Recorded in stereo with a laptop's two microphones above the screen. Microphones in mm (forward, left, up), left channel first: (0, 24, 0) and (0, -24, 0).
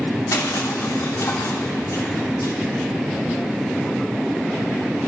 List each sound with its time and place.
0.3 s crushing: 75° left (ahead or behind), 3 m